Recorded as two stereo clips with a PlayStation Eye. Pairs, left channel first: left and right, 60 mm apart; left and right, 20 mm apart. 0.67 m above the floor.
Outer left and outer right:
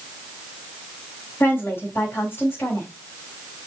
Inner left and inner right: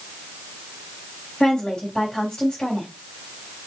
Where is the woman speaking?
40° left (ahead or behind), 3.5 m.